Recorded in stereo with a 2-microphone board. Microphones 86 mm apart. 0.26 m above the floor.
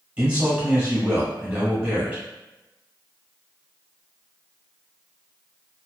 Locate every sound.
0.2 s a man speaking: 15° right (ahead or behind), 1.1 m